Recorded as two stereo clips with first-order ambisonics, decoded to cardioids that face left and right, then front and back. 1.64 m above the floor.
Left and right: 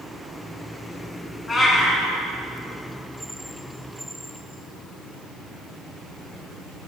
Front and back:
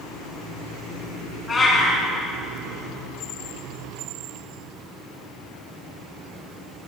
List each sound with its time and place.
1.5 s a cat meowing: 45° left, 1.6 m